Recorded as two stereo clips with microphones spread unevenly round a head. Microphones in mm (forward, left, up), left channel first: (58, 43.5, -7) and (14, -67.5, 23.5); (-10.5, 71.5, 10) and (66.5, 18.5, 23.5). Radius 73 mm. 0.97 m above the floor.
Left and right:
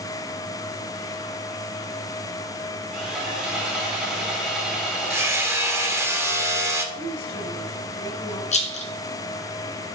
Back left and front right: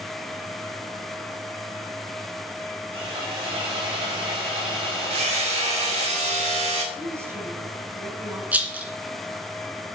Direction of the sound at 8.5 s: 35° left.